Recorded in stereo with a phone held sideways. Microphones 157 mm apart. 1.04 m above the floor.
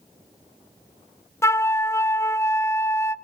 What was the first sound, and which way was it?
A flute, 15° left (ahead or behind).